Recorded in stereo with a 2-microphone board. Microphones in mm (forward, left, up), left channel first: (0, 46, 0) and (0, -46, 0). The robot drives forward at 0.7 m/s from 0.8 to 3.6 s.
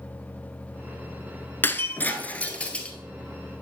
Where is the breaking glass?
25° left (ahead or behind), 0.7 m; by 3.0 s 15° left (ahead or behind), 1.3 m.